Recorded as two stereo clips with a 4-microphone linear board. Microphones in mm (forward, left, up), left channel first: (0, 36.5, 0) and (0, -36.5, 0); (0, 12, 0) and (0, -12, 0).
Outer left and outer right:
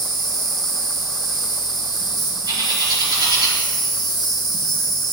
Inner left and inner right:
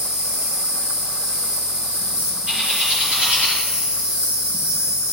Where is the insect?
60° right (ahead or behind), 2.5 m.